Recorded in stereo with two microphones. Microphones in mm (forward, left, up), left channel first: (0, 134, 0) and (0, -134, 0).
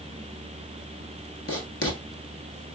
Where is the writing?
60° left (ahead or behind), 0.9 m.